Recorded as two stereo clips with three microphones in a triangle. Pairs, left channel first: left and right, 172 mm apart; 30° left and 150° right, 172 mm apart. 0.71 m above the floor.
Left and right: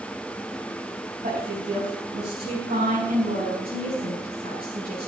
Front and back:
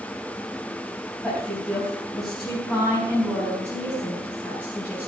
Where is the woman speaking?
55° right, 4.5 m; by 5.1 s 65° right, 7 m.